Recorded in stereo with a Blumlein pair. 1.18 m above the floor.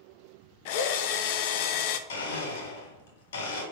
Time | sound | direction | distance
0.7 | a drill | 50° left | 0.7 m
2.1 | a blender | 60° left | 3 m